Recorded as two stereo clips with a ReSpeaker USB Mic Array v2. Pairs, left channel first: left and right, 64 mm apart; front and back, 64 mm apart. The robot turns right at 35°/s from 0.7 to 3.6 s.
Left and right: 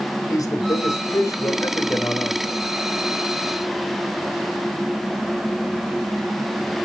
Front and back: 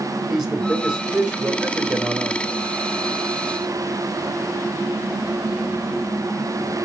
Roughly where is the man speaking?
Left.